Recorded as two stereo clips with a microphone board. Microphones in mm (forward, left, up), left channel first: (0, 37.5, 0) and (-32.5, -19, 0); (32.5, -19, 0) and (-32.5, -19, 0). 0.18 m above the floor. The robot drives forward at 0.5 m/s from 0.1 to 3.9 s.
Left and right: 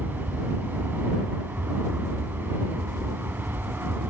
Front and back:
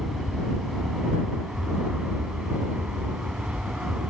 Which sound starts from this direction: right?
An aircraft, at 0.0 s.